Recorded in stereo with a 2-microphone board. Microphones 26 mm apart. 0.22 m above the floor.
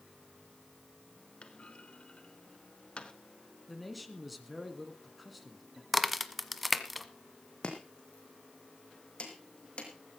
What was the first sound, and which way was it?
A clunk, 45° left (ahead or behind).